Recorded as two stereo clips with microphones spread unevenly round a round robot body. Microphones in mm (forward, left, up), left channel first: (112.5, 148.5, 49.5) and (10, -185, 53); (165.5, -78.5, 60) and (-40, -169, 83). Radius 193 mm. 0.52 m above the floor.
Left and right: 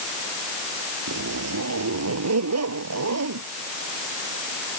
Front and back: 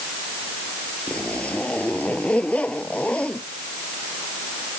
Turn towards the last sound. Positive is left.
turn(degrees=-60)